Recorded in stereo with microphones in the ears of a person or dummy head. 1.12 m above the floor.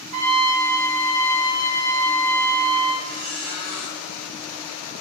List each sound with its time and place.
0.1 s a trumpet: 60° right (ahead or behind), 3.5 m
3.0 s a squeak: 55° right (ahead or behind), 3.5 m